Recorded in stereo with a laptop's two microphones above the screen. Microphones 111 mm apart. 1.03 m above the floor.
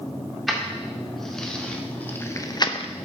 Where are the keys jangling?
Centre (ahead or behind), 2 m; by 2.9 s 60° left (ahead or behind), 0.5 m.